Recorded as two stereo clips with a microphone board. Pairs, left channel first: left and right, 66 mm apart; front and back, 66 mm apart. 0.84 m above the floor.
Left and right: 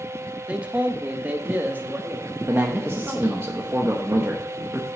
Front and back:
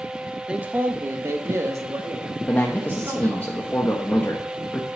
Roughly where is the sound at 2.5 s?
Ahead right.